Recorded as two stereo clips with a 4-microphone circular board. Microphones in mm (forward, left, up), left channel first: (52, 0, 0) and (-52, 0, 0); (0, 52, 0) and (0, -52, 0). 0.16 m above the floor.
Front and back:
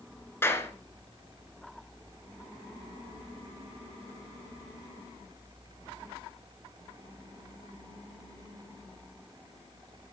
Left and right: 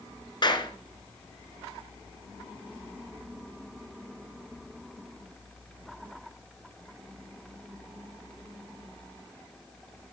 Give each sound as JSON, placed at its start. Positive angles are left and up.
{"t": 0.4, "sound": "a clap", "azimuth_deg": 60, "distance_m": 1.4}